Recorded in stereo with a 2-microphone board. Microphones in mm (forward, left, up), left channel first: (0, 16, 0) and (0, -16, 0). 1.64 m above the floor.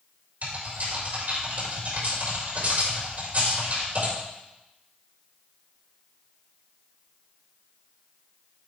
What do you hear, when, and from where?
0.4 s typing on a keyboard: 50° right (ahead or behind), 6 m